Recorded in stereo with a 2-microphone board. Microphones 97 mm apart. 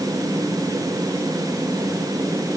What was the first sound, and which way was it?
Only background noise.